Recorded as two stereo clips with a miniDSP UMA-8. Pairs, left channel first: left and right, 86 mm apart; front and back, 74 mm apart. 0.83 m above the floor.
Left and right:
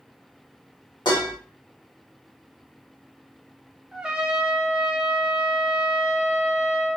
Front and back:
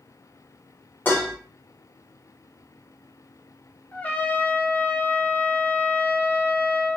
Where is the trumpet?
25° right, 0.5 m.